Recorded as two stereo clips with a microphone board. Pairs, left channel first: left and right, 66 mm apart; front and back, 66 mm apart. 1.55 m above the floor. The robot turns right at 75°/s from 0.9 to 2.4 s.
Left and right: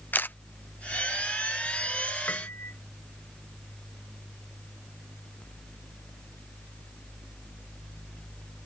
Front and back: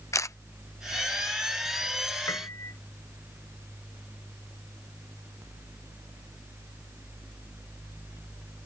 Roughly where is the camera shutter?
Ahead left.